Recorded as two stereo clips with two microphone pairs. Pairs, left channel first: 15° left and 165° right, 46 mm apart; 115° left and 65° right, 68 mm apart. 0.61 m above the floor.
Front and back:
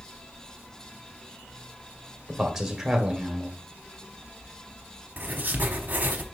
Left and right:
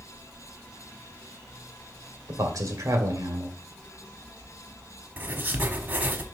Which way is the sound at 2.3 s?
85° right.